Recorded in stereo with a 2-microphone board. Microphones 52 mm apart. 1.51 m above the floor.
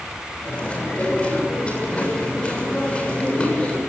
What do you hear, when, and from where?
0.5 s chewing: 25° left (ahead or behind), 7 m